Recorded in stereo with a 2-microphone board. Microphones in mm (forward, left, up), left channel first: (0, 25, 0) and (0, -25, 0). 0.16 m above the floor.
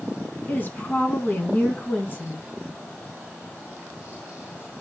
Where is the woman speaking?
35° left (ahead or behind), 1.9 m.